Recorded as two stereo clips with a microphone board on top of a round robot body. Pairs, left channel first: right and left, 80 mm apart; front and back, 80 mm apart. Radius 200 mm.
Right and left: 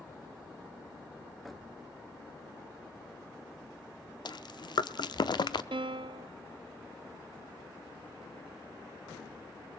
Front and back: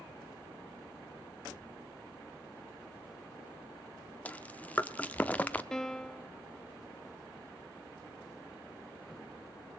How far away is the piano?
About 0.5 m.